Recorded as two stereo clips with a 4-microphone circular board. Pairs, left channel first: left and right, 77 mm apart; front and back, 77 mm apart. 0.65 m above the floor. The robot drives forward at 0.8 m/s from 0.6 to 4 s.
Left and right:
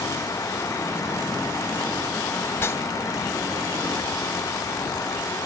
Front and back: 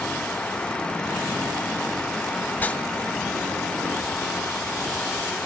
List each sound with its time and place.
2.5 s a whoosh: 45° left, 0.6 m; by 2.8 s 85° left, 0.5 m